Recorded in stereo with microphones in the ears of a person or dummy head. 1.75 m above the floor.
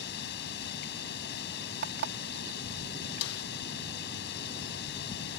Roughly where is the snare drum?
Left.